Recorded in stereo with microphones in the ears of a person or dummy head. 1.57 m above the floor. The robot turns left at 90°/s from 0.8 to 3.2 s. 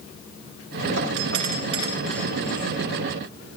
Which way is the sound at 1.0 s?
80° right.